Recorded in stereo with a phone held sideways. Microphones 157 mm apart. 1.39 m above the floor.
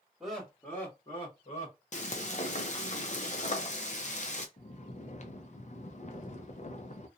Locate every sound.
0.2 s laughter: centre (ahead or behind), 1.4 m; by 1.8 s 55° left (ahead or behind), 1.1 m
1.9 s frying: 50° left (ahead or behind), 0.6 m
4.6 s snoring: 50° left (ahead or behind), 0.5 m